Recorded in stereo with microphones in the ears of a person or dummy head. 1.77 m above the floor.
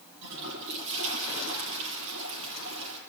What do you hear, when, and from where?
0.2 s a toilet flushing: 65° right (ahead or behind), 7 m